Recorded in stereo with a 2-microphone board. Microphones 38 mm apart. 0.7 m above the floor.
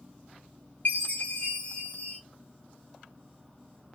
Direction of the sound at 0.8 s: 50° left (ahead or behind).